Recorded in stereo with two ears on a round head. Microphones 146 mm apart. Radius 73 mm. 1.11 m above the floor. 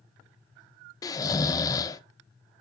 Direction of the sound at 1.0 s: 20° left (ahead or behind).